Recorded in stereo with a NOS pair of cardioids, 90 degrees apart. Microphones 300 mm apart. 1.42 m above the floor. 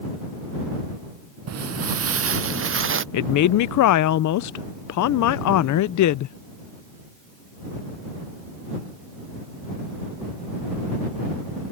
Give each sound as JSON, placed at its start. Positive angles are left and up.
{"t": 1.5, "sound": "footsteps", "azimuth_deg": -55}
{"t": 3.1, "sound": "a woman speaking", "azimuth_deg": 65}